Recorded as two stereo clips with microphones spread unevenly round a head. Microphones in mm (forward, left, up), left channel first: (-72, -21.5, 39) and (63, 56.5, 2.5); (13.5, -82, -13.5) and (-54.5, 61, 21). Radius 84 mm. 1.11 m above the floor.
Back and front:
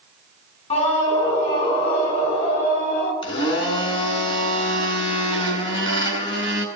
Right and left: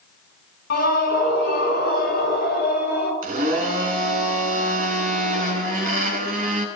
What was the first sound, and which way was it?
A scream, 95° right.